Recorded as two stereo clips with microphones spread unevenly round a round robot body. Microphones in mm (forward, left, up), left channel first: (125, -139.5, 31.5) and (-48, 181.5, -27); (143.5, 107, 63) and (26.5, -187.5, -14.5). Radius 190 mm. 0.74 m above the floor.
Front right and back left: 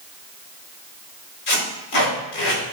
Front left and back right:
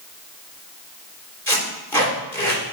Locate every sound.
1.5 s tape being pulled: 20° right, 3 m